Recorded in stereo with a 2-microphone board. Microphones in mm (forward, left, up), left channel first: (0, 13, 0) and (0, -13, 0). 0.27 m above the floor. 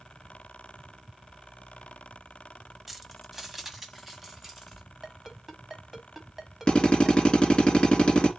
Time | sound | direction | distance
2.9 | keys jangling | 5° right (ahead or behind) | 0.9 m
5.0 | a ringtone | 15° right (ahead or behind) | 1.2 m
6.7 | a drill | 35° left (ahead or behind) | 2.5 m